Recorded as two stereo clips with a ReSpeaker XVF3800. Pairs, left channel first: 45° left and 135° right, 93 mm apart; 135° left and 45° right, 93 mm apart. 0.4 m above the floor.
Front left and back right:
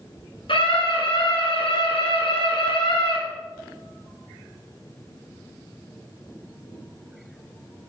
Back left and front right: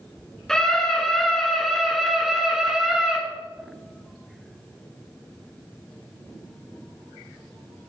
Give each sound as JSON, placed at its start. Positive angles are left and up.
{"t": 0.5, "sound": "a scream", "azimuth_deg": 50, "distance_m": 6.0}